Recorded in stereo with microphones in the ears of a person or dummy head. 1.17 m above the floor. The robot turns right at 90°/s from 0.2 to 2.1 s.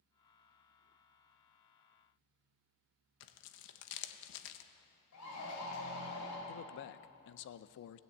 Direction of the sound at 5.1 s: 80° left.